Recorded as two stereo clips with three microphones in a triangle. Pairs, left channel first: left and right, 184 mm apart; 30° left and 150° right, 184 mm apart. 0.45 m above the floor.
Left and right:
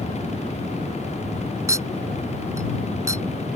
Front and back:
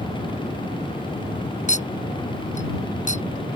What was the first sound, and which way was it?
A clink, 15° right.